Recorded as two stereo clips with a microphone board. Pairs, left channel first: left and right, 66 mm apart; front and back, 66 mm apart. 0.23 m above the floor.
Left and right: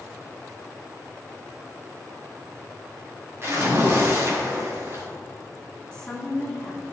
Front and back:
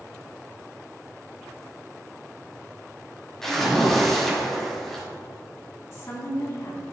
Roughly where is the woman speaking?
Ahead.